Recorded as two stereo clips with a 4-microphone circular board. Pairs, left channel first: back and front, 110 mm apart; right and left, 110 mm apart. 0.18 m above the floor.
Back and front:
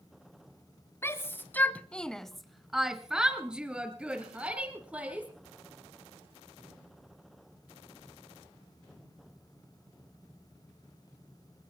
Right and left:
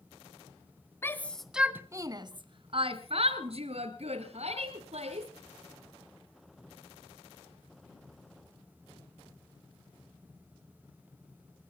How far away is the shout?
About 1.2 m.